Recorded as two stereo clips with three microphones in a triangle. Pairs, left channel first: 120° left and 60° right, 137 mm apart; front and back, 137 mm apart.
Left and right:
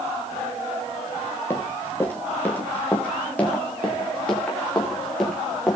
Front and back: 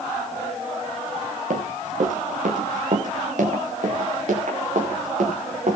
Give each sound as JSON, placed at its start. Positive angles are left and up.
{"t": 1.5, "sound": "running footsteps", "azimuth_deg": -165, "distance_m": 5.5}